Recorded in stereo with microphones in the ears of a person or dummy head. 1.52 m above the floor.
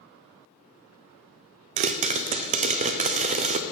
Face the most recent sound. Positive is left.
turn(degrees=-35)  # may be behind; listen again after turning